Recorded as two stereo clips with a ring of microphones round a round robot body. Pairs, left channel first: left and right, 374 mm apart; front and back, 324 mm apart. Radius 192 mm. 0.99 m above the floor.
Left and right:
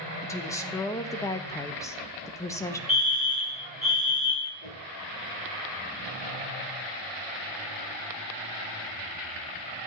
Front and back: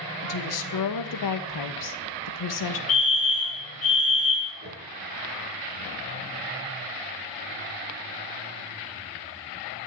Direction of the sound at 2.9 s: Straight ahead.